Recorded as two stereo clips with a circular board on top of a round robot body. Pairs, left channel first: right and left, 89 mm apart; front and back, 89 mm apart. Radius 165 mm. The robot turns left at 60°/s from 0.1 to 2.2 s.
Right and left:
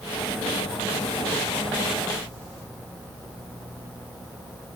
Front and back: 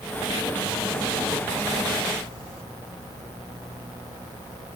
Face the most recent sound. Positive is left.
No sound to turn to.